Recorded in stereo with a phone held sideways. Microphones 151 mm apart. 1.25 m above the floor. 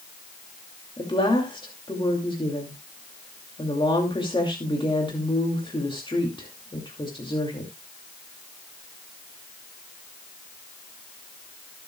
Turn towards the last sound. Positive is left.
turn(degrees=35)  # may be behind; listen again after turning